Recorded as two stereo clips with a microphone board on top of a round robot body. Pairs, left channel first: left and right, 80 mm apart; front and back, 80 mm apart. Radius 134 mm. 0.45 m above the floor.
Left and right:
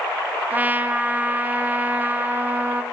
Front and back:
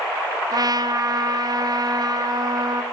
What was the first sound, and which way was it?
A trumpet, 155° right.